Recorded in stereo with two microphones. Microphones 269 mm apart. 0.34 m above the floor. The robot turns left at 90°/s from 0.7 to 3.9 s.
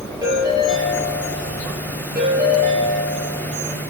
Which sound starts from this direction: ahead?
A ringtone, at 0.2 s.